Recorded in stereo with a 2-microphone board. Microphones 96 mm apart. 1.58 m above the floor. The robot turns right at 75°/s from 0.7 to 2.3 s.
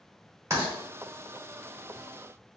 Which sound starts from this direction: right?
Writing, at 0.5 s.